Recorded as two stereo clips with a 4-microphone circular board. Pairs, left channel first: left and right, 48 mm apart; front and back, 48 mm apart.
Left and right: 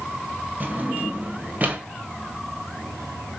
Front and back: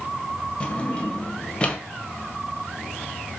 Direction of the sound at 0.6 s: 55° right.